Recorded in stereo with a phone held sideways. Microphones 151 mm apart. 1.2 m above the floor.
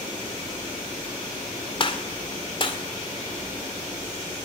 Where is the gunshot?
35° left (ahead or behind), 2 m.